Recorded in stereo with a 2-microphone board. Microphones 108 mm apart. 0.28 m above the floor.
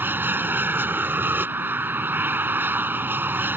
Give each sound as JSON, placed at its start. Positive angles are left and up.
{"t": 0.0, "sound": "an aircraft", "side_deg": -15}